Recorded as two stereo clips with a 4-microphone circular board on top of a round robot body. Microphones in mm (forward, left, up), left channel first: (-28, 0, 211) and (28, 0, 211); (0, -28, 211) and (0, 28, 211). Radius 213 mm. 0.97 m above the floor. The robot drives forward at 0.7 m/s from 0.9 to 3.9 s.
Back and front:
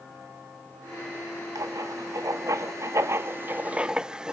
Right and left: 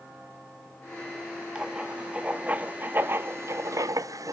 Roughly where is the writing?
Ahead.